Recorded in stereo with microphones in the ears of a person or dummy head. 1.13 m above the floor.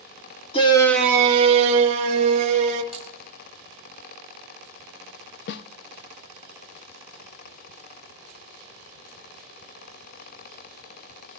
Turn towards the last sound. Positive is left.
turn(degrees=65)  # may be behind; listen again after turning